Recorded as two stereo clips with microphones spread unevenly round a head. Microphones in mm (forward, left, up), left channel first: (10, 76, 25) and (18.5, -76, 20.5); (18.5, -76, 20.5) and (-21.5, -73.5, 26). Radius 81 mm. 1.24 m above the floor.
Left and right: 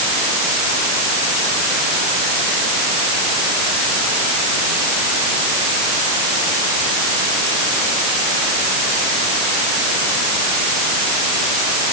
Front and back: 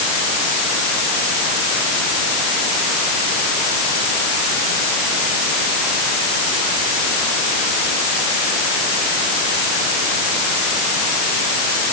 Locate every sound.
Only background noise.